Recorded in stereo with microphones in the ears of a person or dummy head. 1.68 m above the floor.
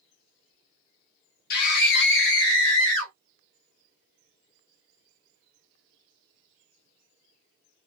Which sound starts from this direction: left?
A scream, at 1.5 s.